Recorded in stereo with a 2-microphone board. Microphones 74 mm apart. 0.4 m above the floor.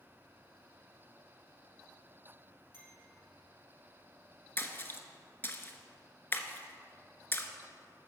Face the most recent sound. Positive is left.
turn(degrees=30)  # may be behind; listen again after turning